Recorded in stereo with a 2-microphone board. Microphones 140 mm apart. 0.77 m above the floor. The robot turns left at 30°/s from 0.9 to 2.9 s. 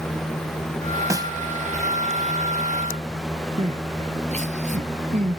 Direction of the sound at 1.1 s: 20° right (ahead or behind).